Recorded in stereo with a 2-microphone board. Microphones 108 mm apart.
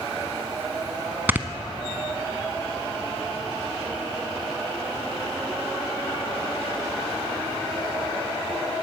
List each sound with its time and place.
1.3 s snoring: 20° right (ahead or behind), 0.7 m